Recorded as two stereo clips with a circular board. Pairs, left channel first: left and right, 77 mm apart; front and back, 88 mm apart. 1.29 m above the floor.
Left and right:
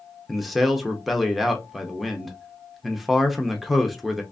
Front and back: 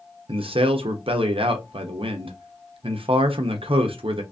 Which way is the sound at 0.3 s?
Straight behind.